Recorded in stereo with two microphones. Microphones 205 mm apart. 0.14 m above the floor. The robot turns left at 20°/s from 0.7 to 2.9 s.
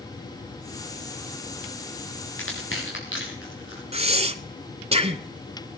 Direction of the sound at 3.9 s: 30° right (ahead or behind).